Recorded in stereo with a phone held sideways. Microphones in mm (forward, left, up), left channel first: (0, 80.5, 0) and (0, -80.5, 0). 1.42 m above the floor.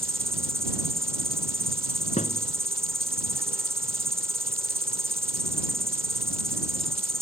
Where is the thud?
50° left (ahead or behind).